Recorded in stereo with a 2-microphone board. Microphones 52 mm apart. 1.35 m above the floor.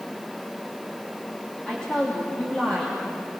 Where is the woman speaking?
15° left (ahead or behind), 3 m.